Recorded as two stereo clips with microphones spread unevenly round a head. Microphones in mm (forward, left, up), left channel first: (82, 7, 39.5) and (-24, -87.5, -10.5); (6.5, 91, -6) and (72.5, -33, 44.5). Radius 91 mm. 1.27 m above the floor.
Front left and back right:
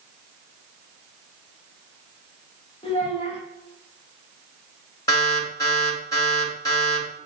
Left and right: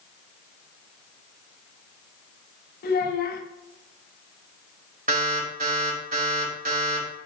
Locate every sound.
2.8 s a child speaking: 105° left, 1.4 m
5.1 s an alarm: 30° right, 3.5 m